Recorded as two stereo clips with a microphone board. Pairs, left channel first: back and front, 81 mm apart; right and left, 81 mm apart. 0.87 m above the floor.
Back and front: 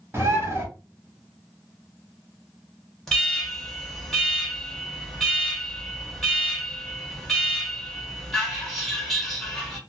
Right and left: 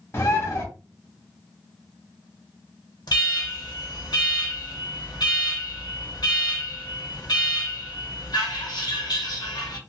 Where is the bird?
45° right, 0.8 m.